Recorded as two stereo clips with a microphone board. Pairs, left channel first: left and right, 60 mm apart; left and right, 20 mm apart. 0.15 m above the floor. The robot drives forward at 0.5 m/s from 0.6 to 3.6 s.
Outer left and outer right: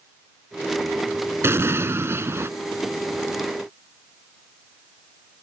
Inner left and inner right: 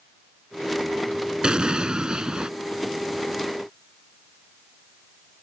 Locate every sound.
1.4 s an explosion: 45° right (ahead or behind)